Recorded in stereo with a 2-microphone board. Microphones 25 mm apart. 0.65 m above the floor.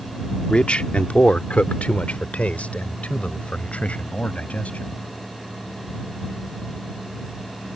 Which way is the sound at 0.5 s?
45° left (ahead or behind).